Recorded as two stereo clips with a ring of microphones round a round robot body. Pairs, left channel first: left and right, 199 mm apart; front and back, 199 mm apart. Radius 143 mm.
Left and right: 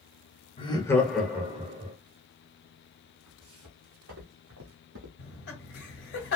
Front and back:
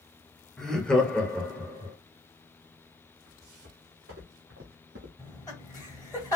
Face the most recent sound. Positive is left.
turn(degrees=70)